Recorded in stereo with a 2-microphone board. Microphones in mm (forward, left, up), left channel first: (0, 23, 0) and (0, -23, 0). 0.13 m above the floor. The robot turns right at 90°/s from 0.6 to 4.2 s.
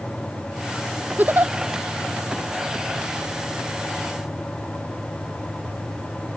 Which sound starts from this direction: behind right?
A giggle, at 1.2 s.